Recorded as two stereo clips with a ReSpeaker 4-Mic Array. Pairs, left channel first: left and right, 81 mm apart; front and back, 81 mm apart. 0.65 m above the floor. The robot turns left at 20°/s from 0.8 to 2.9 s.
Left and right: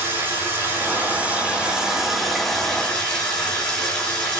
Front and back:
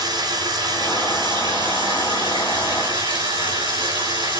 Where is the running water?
150° right, 7 m; by 4.4 s 165° left, 7 m.